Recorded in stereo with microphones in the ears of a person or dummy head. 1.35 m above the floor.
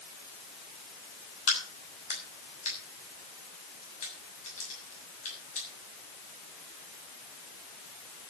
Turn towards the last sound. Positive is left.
turn(degrees=40)  # may be behind; listen again after turning